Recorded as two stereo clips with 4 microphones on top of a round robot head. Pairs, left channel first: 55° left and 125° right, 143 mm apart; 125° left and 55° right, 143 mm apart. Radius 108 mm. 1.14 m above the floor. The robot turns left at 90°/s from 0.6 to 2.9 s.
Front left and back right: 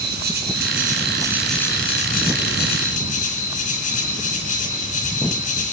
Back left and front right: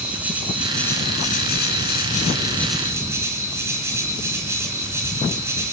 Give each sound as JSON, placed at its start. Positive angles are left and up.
{"t": 0.0, "sound": "an insect", "azimuth_deg": -135, "distance_m": 3.0}